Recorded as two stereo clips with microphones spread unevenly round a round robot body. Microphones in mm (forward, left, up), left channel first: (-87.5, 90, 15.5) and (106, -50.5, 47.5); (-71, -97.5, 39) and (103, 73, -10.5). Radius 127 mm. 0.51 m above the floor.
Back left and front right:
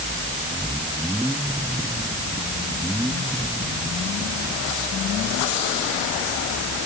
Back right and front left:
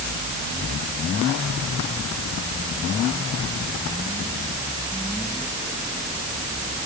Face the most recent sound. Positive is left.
No sound to turn to.